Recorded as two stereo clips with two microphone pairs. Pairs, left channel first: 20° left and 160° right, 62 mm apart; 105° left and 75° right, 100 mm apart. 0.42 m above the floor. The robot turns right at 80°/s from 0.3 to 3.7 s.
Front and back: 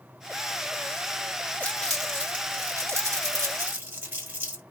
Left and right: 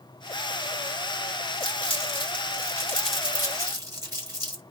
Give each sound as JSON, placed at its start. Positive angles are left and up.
{"t": 1.6, "sound": "crumpling", "azimuth_deg": 75, "distance_m": 1.4}